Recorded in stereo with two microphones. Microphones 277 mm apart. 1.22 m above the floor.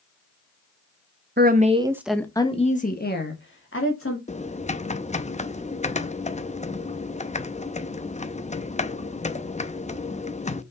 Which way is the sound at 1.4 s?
35° right (ahead or behind).